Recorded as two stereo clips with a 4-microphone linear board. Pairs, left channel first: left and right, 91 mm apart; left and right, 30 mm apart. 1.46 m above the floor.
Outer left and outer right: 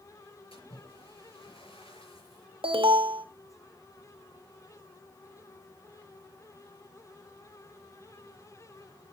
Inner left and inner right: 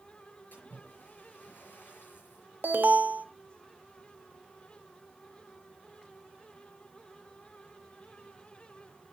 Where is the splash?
80° left, 6.5 m.